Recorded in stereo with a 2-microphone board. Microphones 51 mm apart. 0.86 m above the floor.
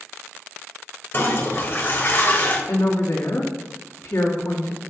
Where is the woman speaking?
70° left (ahead or behind), 1.3 m.